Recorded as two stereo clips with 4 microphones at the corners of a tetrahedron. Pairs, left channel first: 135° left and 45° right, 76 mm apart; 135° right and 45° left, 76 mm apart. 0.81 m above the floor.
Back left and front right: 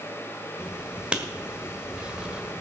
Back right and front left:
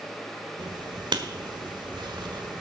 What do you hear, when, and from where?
0.6 s writing: 30° left, 1.4 m